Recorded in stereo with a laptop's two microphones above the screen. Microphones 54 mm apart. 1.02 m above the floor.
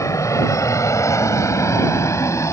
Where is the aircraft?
75° left (ahead or behind); by 2.5 s 65° left (ahead or behind).